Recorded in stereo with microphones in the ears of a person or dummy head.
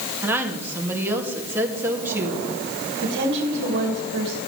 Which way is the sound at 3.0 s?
60° right (ahead or behind).